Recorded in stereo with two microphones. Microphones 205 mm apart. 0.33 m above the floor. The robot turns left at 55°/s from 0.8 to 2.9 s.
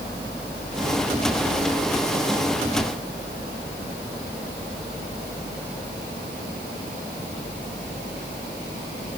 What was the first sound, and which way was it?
Only background noise.